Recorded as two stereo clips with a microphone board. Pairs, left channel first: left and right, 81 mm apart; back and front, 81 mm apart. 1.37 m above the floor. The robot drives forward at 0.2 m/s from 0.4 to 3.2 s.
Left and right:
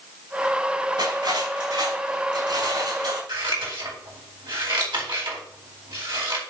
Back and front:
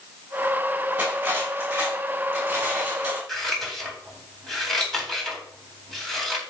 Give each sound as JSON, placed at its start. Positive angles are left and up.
{"t": 1.0, "sound": "cutlery clinking", "azimuth_deg": -70, "distance_m": 7.0}
{"t": 3.3, "sound": "scissors", "azimuth_deg": -95, "distance_m": 4.0}